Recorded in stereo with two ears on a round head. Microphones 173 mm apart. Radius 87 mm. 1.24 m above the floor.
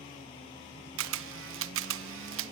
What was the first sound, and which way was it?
A camera shutter, 70° right (ahead or behind).